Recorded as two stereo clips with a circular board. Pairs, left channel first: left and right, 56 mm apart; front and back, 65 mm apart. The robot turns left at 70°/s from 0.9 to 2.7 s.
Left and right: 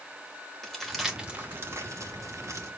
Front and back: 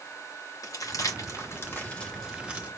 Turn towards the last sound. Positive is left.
turn(degrees=-120)